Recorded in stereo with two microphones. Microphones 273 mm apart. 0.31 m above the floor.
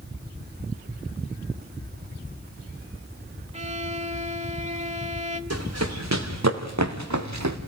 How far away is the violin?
About 1.1 m.